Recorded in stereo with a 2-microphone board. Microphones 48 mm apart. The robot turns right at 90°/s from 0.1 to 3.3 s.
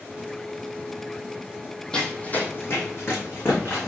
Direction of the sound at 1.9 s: 15° left (ahead or behind).